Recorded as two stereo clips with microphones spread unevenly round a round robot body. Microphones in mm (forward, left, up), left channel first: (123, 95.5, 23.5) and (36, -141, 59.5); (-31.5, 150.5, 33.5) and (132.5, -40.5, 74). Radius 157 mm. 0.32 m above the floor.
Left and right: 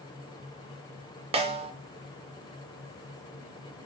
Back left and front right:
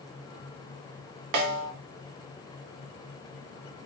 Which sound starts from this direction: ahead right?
A snare drum, at 1.3 s.